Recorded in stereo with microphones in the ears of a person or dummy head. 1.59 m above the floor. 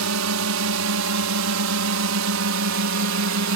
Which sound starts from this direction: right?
A drone, at 0.0 s.